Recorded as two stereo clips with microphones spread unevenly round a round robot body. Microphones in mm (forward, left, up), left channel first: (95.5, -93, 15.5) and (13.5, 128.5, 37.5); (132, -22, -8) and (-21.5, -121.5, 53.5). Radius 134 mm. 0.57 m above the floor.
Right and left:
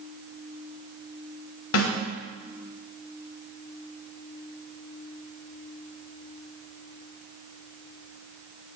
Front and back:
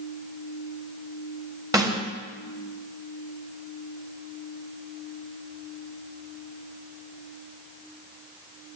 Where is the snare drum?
70° right, 3.5 m.